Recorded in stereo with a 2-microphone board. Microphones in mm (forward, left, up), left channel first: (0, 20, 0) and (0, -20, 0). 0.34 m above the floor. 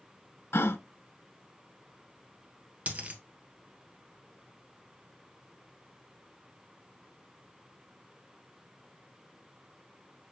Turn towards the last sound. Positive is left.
turn(degrees=-40)  # may be behind; listen again after turning